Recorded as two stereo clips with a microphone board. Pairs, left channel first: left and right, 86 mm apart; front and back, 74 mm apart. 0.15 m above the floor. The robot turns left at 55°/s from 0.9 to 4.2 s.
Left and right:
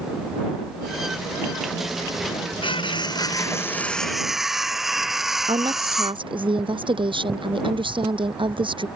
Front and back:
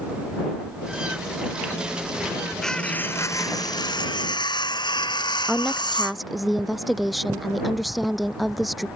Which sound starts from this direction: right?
A woman speaking, at 5.5 s.